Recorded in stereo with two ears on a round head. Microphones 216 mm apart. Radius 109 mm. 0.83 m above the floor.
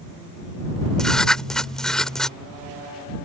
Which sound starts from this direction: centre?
Writing, at 1.0 s.